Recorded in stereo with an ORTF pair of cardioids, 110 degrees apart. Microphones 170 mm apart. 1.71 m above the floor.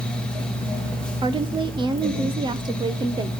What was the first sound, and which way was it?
A fan, 5° left.